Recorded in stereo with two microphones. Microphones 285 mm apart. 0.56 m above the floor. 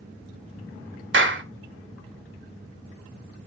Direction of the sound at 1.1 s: 45° right (ahead or behind).